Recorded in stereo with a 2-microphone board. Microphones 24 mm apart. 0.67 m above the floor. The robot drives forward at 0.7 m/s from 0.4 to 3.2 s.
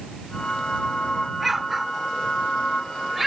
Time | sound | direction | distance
1.4 | an explosion | 10° right (ahead or behind) | ?